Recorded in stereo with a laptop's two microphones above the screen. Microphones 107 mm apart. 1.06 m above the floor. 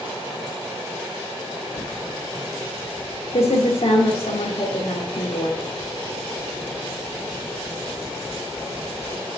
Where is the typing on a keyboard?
65° left (ahead or behind), 1.3 m.